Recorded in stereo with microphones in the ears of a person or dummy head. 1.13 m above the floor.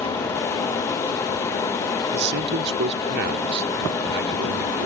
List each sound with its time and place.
2.1 s a man speaking: 55° right (ahead or behind)